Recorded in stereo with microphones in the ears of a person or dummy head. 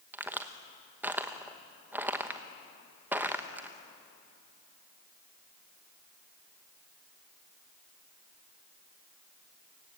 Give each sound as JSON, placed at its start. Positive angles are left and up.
{"t": 0.1, "sound": "a crack", "side_deg": -10, "distance_m": 0.9}